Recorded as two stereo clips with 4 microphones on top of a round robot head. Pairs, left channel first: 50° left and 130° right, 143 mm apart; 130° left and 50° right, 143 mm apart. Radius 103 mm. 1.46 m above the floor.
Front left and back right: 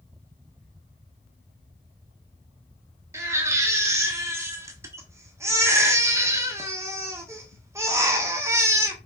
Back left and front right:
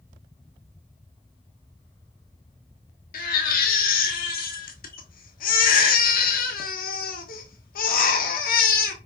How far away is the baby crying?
About 1.3 m.